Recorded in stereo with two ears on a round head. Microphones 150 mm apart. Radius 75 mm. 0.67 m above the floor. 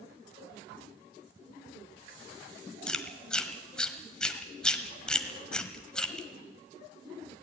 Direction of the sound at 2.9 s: 5° left (ahead or behind).